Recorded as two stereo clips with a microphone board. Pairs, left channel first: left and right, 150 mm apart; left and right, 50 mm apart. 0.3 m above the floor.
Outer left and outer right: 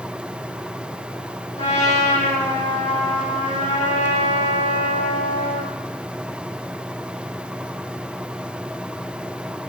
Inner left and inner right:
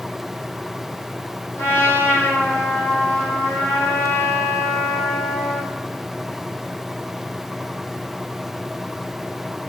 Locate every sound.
1.6 s a trumpet: 60° left (ahead or behind), 9 m